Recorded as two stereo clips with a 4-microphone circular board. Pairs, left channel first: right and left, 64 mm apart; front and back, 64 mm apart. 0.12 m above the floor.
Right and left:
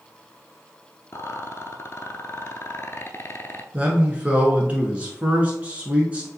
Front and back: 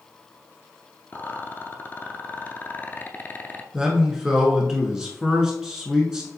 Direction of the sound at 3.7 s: 115° left.